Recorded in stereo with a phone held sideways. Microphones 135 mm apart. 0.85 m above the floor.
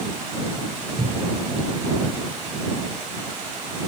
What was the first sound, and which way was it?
A cupboard door, 80° right.